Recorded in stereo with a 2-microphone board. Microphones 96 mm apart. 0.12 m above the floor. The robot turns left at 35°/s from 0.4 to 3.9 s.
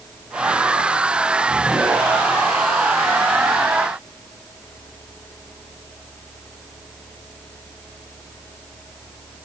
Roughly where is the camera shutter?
No camera shutter in this recording.